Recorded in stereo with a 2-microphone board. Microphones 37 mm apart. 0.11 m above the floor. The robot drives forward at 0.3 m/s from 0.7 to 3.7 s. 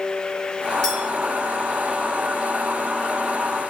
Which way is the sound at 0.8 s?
15° left (ahead or behind).